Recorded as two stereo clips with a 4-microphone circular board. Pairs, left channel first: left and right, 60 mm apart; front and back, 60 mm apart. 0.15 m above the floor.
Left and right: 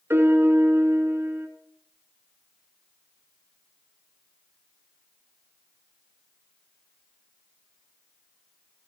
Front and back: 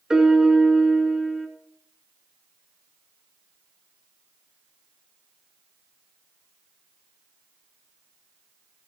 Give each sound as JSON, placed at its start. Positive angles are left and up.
{"t": 0.1, "sound": "a piano", "azimuth_deg": -105, "distance_m": 1.1}